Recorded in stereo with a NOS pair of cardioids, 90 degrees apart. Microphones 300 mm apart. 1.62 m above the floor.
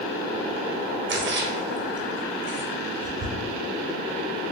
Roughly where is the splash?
Ahead right.